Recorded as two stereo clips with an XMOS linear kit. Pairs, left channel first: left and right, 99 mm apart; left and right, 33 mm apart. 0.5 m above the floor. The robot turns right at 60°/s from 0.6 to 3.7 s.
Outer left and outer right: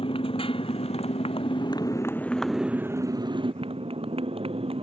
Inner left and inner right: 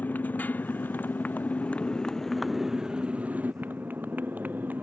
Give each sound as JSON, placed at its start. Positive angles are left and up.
{"t": 0.0, "sound": "a motorcycle", "azimuth_deg": 65}